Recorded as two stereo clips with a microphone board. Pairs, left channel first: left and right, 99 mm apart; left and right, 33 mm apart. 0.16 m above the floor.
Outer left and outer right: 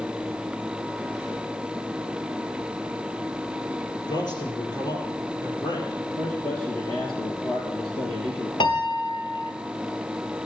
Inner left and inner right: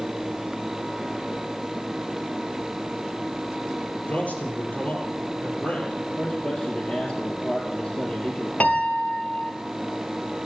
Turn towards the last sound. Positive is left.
turn(degrees=55)  # may be behind; listen again after turning